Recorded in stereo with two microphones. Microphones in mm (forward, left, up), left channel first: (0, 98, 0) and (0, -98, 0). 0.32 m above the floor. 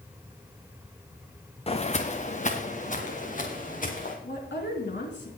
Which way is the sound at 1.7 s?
30° left (ahead or behind).